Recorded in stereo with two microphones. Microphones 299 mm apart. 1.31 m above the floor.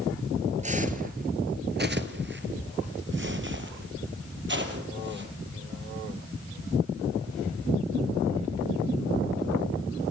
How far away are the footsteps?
About 1.5 m.